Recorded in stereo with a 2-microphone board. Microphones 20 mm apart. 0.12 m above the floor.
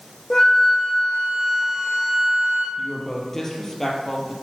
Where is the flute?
25° left (ahead or behind), 3 m.